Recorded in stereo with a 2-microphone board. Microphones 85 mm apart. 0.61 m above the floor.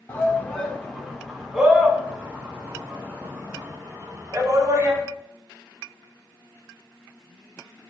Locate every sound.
0.1 s a shout: 25° left (ahead or behind), 1.5 m; by 5.0 s 35° right (ahead or behind), 3.5 m